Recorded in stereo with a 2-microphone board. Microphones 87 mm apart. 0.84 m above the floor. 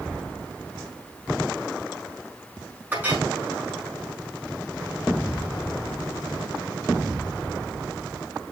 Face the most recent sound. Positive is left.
turn(degrees=-20)  # may be behind; listen again after turning